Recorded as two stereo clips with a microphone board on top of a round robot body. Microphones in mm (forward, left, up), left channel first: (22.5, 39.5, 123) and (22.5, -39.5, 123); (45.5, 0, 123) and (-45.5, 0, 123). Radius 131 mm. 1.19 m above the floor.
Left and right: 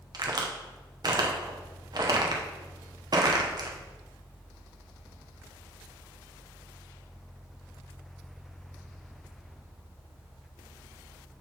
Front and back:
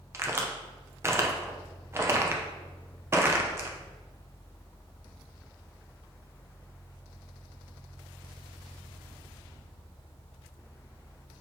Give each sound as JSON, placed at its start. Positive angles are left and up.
{"t": 0.1, "sound": "a crack", "azimuth_deg": -120, "distance_m": 0.9}